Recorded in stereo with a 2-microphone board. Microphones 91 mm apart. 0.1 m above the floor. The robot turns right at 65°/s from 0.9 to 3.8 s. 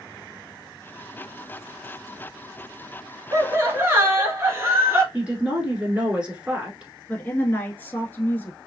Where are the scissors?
No scissors in this recording.